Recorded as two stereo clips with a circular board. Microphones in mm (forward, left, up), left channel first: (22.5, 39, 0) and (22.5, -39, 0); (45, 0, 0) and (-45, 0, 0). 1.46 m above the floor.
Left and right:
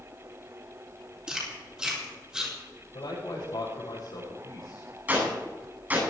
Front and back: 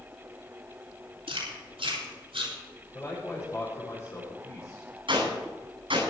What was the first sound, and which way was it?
Chewing, 170° right.